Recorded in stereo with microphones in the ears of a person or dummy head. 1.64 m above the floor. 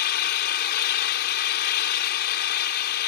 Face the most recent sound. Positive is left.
turn(degrees=60)  # may be behind; listen again after turning